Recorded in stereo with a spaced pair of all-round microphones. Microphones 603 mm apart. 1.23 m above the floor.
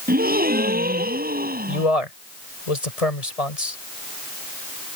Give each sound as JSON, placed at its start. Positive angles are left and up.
{"t": 0.1, "sound": "a gasp", "side_deg": -15}
{"t": 1.7, "sound": "a man speaking", "side_deg": 75}